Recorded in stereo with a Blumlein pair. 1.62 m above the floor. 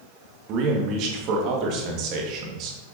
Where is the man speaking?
40° right, 1.9 m.